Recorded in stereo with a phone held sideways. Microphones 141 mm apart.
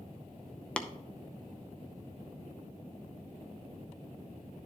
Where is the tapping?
10° left (ahead or behind), 0.6 m.